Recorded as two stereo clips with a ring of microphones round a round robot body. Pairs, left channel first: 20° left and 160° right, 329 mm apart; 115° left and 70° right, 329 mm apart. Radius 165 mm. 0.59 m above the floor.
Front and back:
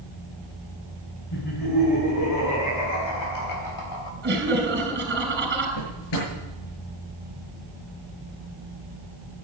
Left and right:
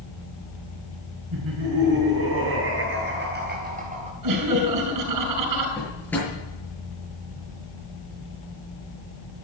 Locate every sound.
1.3 s laughter: 20° right, 6.5 m; by 4.1 s 5° left, 2.5 m
4.2 s laughter: 100° right, 5.5 m
5.8 s a drawer: 30° left, 7.5 m